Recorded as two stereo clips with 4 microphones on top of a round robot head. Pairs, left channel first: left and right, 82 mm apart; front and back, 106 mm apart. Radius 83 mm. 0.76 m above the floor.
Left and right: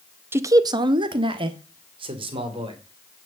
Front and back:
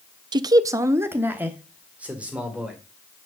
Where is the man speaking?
145° right, 0.6 m; by 2.8 s 95° right, 2.5 m.